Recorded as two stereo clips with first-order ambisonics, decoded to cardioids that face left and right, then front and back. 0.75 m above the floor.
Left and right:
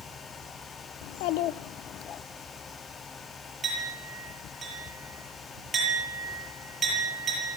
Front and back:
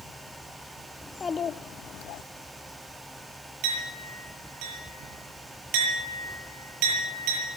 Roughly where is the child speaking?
Left.